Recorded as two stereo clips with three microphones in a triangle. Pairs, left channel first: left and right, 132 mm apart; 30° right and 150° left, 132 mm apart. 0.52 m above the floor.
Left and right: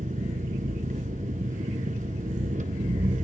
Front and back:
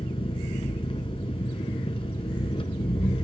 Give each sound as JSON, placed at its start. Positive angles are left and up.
{"t": 0.0, "sound": "an engine running", "azimuth_deg": -80, "distance_m": 1.4}